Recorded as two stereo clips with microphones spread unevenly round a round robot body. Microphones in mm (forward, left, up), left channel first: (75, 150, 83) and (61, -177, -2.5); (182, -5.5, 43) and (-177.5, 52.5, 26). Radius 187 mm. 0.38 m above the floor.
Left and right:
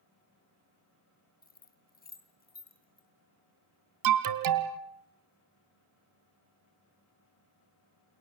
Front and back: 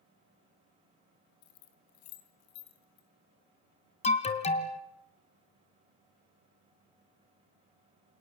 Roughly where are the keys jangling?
Ahead.